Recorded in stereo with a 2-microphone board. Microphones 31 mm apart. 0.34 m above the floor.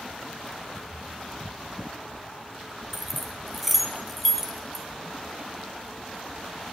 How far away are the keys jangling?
About 2.5 m.